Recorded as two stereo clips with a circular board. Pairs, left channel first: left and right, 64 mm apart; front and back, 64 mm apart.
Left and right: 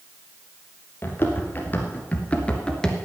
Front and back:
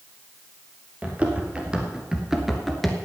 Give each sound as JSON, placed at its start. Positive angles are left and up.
{"t": 1.0, "sound": "running footsteps", "azimuth_deg": 125, "distance_m": 2.5}